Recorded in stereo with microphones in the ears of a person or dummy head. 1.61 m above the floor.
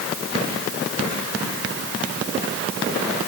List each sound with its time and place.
Only background noise.